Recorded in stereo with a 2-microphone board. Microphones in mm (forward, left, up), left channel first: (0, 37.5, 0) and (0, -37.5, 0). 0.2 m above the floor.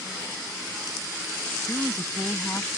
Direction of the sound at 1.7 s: 30° left (ahead or behind).